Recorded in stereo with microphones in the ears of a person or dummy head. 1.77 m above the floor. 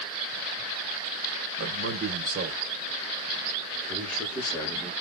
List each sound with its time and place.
1.6 s a man speaking: 60° right (ahead or behind), 1.4 m; by 4.9 s 10° left (ahead or behind), 2 m